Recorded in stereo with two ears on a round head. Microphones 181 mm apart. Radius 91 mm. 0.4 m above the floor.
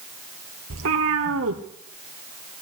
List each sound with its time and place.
0.7 s a cat meowing: 80° right, 1.8 m